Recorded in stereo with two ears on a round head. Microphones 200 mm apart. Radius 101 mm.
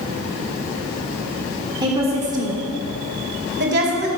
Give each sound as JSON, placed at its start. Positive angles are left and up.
{"t": 1.8, "sound": "a woman speaking", "side_deg": -20, "distance_m": 1.4}